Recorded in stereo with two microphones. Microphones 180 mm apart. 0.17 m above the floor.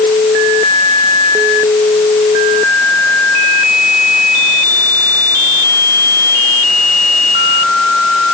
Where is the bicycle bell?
I don't hear a bicycle bell.